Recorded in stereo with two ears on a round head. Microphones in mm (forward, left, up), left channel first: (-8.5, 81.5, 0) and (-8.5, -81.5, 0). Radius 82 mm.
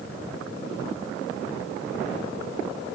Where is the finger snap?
I don't hear a finger snap.